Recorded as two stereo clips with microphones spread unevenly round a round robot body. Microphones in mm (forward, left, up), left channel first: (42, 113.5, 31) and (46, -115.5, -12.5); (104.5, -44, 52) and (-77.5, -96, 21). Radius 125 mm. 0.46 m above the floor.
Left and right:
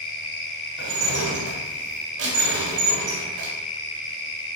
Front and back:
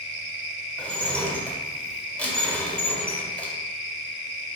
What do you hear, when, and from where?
0.8 s dishes clattering: 70° right, 1.2 m